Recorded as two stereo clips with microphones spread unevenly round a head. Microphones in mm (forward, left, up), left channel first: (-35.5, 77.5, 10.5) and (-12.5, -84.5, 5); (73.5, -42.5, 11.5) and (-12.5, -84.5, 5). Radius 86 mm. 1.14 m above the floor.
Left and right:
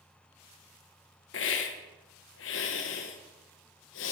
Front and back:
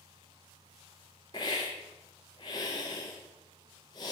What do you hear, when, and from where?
1.3 s a hiss: 90° left, 0.8 m